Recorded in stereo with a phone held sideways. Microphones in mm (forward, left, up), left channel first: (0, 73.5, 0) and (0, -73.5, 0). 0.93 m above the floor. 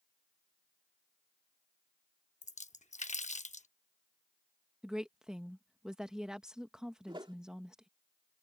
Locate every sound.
2.4 s a splash: 55° left (ahead or behind)
4.8 s a woman speaking: 5° right (ahead or behind)
7.1 s a whoosh: 35° right (ahead or behind)